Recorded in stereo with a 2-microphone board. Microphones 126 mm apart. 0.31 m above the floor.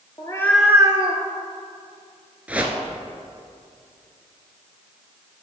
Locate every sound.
0.2 s a cat meowing: 35° left (ahead or behind), 0.9 m; by 1.2 s 55° right (ahead or behind), 1.0 m
2.5 s a whoosh: 10° right (ahead or behind), 0.9 m